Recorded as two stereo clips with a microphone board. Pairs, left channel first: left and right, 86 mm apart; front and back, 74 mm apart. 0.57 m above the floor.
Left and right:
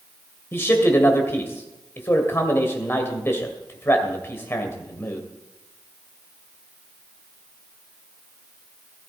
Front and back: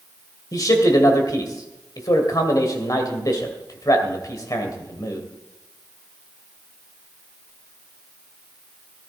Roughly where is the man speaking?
Ahead left.